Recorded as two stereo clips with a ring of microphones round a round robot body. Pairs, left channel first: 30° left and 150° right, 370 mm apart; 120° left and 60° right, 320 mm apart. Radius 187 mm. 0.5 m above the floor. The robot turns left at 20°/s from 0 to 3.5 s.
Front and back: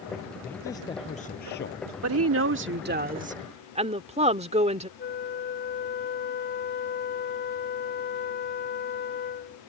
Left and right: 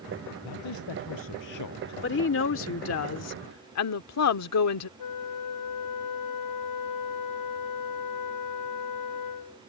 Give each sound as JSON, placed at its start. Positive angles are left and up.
{"t": 0.4, "sound": "a man speaking", "azimuth_deg": 120}
{"t": 2.0, "sound": "a woman speaking", "azimuth_deg": 170}
{"t": 5.0, "sound": "a flute", "azimuth_deg": 95}